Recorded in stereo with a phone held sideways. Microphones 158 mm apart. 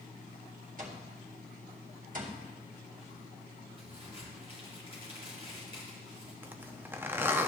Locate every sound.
0.8 s an alarm clock: 55° right (ahead or behind), 1.7 m
3.8 s a crack: 45° right (ahead or behind), 4 m
6.4 s a zipper: 15° right (ahead or behind), 0.7 m